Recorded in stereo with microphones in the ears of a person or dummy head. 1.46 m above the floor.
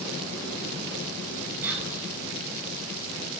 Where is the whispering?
15° right (ahead or behind), 10 m.